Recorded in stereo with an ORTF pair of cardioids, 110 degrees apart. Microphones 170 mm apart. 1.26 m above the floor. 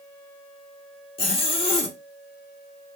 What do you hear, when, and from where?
1.2 s a zipper: 35° left, 1.1 m